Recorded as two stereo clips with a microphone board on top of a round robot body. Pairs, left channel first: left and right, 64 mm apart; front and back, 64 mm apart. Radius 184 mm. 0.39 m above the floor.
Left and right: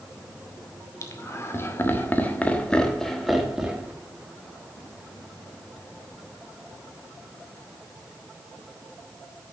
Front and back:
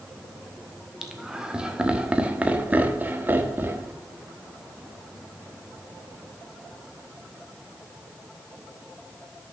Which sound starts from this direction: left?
Laughter, at 1.0 s.